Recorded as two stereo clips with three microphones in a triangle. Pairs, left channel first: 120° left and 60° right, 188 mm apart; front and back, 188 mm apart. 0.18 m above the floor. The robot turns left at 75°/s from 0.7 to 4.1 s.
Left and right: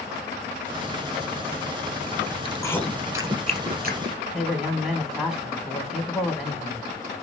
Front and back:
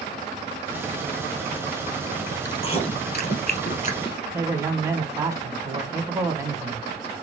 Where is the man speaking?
140° right, 1.2 m.